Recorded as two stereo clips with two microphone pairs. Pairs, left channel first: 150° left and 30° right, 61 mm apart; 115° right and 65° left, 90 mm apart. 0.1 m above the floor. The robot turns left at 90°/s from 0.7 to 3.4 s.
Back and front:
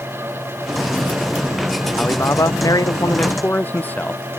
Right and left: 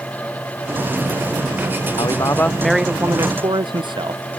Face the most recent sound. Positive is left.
turn(degrees=90)